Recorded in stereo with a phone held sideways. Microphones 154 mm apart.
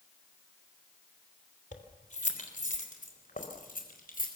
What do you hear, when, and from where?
1.7 s keys jangling: 50° left (ahead or behind), 3 m; by 4.3 s 65° left (ahead or behind), 5 m